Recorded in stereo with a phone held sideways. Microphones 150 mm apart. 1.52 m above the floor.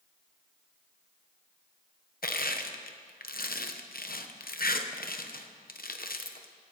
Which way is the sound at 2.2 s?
75° left (ahead or behind).